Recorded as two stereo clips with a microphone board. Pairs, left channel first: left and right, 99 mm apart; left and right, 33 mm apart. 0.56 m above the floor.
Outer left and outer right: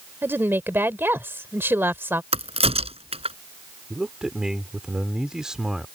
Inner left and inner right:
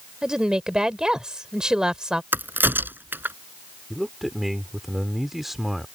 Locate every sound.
0.2 s a woman speaking: 20° right (ahead or behind)
2.3 s a crack: 85° right
3.9 s a man speaking: 5° right (ahead or behind)